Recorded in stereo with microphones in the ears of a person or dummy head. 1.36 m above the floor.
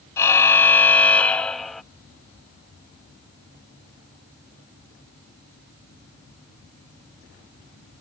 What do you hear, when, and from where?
0.2 s a car horn: 15° left (ahead or behind); by 1.8 s centre (ahead or behind)